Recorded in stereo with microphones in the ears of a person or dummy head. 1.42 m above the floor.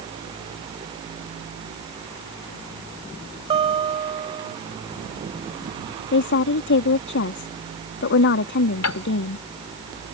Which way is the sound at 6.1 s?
60° left (ahead or behind).